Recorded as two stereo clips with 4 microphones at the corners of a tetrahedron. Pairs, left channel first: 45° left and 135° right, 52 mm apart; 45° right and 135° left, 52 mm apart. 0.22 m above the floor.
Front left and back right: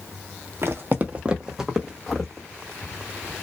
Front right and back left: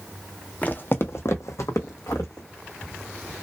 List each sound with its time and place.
0.6 s footsteps: 105° right, 0.5 m; by 2.5 s 35° right, 1.0 m